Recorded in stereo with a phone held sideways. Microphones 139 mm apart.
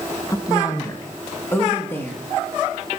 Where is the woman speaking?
25° left (ahead or behind), 1.1 m; by 2.2 s 15° left (ahead or behind), 2 m.